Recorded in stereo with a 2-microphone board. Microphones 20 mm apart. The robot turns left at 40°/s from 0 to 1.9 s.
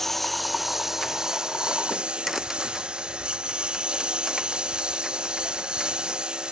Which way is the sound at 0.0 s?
15° left (ahead or behind).